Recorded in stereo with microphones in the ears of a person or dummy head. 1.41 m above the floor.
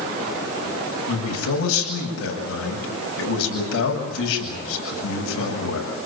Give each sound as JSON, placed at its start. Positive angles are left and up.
{"t": 1.1, "sound": "a man speaking", "side_deg": 80, "distance_m": 8.5}